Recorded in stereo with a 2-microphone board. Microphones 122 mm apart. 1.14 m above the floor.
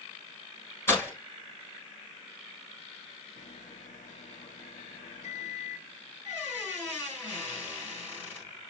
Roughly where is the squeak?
Centre.